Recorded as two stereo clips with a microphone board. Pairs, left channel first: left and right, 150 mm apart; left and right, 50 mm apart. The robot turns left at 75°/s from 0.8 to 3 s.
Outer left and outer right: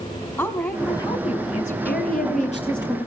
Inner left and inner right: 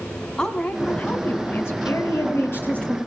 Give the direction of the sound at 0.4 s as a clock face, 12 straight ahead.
7 o'clock.